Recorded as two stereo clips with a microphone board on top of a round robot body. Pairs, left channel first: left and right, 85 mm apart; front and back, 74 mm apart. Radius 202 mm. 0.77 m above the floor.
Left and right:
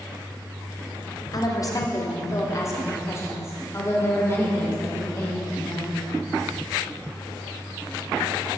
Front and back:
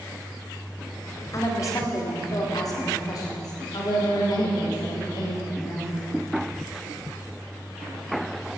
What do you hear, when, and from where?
1.3 s a woman speaking: 45° left, 2 m; by 6.0 s 25° left, 5 m